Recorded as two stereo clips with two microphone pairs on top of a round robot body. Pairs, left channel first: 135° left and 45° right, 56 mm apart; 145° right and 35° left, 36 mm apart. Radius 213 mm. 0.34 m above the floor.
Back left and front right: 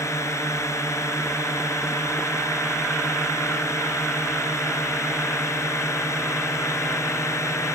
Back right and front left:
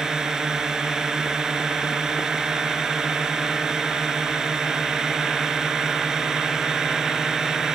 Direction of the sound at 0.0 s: 110° left.